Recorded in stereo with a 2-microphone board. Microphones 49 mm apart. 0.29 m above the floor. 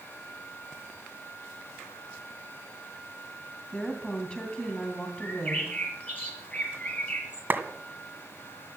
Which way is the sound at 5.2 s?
30° left (ahead or behind).